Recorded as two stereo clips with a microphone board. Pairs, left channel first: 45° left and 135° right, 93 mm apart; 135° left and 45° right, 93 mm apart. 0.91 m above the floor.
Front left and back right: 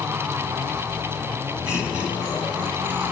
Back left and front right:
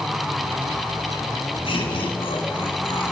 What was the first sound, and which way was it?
Laughter, 150° left.